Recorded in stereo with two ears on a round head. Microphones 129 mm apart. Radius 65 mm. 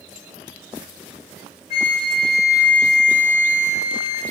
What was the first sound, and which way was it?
A flute, 45° left (ahead or behind).